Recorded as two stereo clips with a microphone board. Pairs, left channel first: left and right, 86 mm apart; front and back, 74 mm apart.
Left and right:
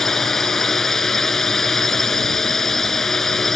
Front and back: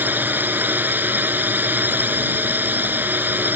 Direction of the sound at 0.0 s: 170° left.